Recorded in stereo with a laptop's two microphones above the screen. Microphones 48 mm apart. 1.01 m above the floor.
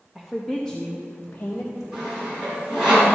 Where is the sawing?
15° right (ahead or behind), 3.5 m.